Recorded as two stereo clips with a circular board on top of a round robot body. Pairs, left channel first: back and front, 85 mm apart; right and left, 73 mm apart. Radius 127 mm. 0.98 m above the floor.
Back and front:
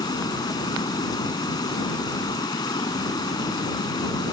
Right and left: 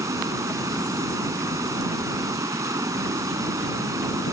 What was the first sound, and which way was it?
Running water, 135° left.